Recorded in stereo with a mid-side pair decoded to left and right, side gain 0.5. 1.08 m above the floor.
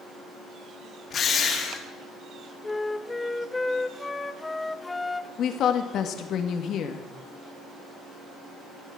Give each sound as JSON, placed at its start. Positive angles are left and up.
{"t": 1.1, "sound": "a drill", "azimuth_deg": 55, "distance_m": 3.0}
{"t": 2.6, "sound": "a flute", "azimuth_deg": 20, "distance_m": 0.6}
{"t": 5.4, "sound": "a woman speaking", "azimuth_deg": 65, "distance_m": 1.7}